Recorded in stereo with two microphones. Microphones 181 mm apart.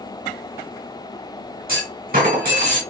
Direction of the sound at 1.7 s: 55° right (ahead or behind).